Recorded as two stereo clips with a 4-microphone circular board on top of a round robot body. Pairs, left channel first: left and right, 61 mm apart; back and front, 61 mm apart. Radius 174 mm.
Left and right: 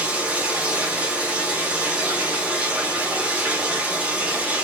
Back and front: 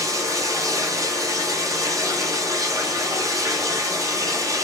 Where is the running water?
20° right, 1.0 m.